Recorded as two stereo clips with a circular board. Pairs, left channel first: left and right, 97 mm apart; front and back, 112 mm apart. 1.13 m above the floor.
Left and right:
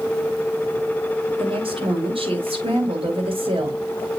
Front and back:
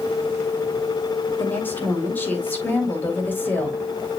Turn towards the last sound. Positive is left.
turn(degrees=-75)